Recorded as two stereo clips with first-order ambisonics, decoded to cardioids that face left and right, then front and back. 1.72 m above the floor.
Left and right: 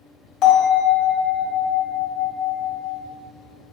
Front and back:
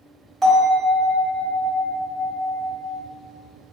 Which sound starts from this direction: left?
A bell, at 0.4 s.